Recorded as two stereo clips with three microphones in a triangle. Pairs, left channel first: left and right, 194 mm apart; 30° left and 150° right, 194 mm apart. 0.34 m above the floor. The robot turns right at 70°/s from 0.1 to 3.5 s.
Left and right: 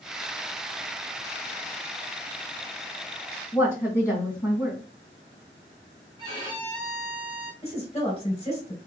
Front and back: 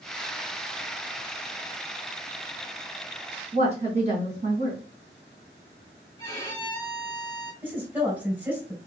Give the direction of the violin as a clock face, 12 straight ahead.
1 o'clock.